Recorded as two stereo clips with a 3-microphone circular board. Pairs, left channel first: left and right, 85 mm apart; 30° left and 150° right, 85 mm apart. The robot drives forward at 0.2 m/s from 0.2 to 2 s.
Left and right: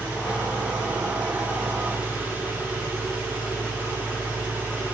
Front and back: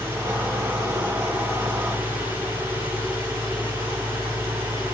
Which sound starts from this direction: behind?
An engine running, at 0.0 s.